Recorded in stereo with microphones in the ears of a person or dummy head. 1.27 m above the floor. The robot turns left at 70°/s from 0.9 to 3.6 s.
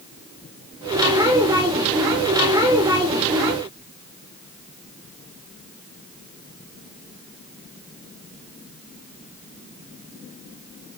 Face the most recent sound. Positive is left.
No sound to turn to.